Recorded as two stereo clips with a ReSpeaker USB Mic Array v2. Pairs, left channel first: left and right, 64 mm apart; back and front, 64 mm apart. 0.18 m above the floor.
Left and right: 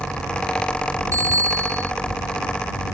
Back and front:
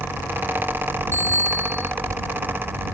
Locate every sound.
1.1 s a bicycle bell: 125° right